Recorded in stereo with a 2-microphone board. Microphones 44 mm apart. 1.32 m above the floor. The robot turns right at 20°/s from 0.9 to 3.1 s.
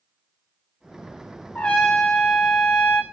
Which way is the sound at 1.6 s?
30° left (ahead or behind).